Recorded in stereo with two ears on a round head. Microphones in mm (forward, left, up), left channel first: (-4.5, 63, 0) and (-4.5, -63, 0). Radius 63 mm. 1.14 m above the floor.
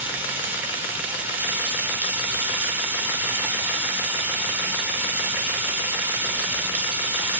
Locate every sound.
0.0 s running water: 15° right (ahead or behind), 0.8 m